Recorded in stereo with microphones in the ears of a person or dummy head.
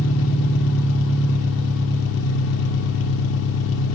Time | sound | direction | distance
0.0 | an engine running | 65° left (ahead or behind) | 2.5 m